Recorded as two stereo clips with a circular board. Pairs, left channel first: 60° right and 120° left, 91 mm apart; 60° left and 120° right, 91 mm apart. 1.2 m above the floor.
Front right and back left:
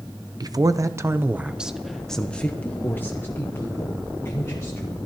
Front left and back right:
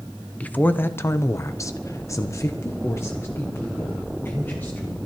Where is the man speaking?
130° left, 0.7 m; by 5.0 s 5° right, 2.0 m.